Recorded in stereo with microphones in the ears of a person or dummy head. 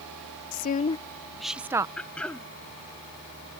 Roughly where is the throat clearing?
Centre.